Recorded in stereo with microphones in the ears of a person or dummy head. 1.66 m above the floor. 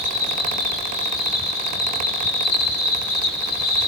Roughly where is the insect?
Left.